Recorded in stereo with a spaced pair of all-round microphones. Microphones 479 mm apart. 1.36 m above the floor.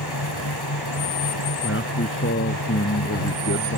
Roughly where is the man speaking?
Left.